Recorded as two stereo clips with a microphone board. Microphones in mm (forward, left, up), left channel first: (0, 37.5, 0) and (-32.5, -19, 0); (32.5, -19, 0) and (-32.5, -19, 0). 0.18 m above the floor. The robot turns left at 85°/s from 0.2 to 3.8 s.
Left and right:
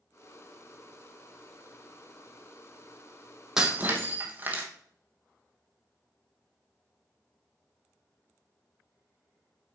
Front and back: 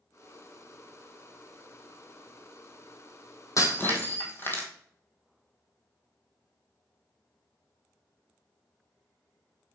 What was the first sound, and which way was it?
Breaking glass, 40° right.